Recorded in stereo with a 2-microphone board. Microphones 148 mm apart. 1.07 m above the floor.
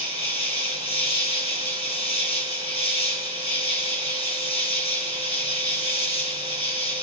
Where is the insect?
40° left (ahead or behind), 1.9 m.